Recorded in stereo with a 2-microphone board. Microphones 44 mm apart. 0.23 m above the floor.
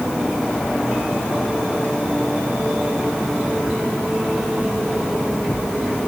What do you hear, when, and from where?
Only background noise.